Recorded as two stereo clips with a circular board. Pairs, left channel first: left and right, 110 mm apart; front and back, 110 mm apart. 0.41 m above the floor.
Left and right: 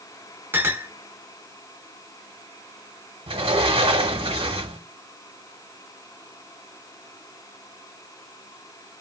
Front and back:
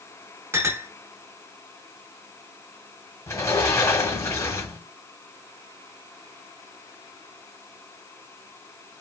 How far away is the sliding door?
About 0.7 m.